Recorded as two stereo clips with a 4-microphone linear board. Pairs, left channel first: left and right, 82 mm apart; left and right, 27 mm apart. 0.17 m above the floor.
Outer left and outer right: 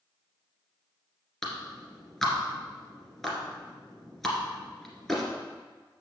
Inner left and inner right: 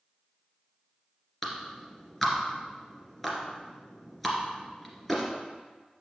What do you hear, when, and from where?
1.4 s a clap: 5° left (ahead or behind), 2.0 m